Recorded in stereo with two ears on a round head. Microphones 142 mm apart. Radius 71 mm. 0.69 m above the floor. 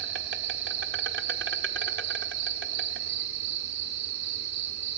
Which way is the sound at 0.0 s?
80° right.